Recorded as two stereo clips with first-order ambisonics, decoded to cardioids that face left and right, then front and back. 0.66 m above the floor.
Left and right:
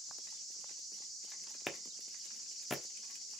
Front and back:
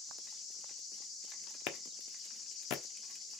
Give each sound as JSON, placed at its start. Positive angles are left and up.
{"t": 1.7, "sound": "a clap", "azimuth_deg": 10, "distance_m": 1.2}